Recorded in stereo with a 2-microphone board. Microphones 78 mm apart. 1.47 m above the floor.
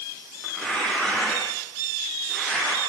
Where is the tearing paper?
15° left (ahead or behind), 10 m.